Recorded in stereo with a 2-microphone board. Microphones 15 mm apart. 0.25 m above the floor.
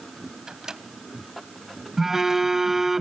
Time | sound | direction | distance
0.5 | a microwave | 40° right (ahead or behind) | 0.9 m
2.0 | a phone buzzing | 30° right (ahead or behind) | 1.0 m